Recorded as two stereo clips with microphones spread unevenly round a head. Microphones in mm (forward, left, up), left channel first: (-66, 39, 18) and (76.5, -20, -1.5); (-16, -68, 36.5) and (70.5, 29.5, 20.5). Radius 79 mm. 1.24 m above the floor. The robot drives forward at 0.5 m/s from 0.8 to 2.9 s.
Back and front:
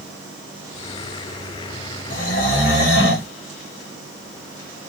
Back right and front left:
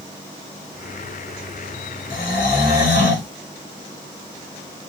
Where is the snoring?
160° right, 1.1 m; by 3.3 s 165° right, 1.5 m.